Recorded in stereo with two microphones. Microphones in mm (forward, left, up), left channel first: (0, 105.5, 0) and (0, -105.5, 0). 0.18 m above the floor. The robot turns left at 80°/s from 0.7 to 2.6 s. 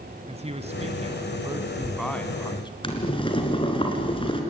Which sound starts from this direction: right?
A man speaking, at 0.3 s.